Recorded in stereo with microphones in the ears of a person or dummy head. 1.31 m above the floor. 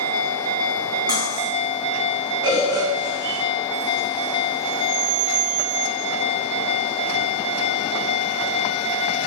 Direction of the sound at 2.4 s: 25° right (ahead or behind).